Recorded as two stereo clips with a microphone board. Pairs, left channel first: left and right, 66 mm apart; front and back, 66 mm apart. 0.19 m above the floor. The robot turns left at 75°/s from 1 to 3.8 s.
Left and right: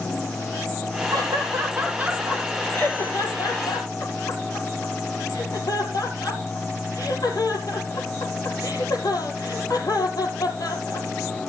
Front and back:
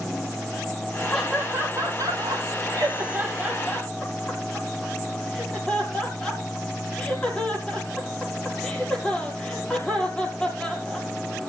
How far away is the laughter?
About 5 m.